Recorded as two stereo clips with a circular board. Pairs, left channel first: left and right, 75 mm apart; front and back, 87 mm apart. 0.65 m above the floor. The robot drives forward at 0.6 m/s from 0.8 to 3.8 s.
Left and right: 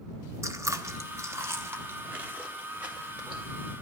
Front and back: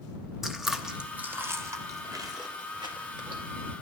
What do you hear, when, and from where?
0.4 s chewing: 95° right, 0.9 m; by 3.4 s 160° right, 1.9 m